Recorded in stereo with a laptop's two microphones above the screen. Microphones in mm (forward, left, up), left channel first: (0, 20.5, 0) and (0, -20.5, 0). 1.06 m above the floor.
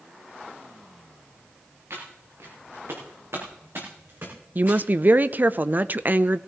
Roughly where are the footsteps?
Right.